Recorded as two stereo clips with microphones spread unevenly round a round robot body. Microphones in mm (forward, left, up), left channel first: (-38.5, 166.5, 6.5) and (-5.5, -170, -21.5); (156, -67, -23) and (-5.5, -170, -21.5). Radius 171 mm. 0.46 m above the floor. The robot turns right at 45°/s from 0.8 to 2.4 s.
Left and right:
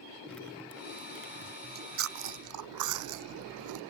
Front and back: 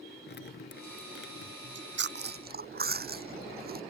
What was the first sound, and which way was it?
Dripping, 10° left.